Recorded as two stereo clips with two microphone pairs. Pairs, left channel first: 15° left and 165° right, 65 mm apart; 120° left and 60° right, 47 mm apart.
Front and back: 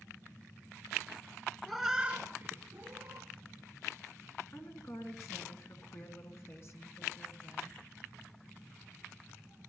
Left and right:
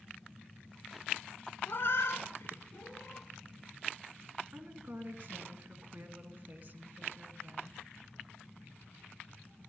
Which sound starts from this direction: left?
A cat meowing, at 1.7 s.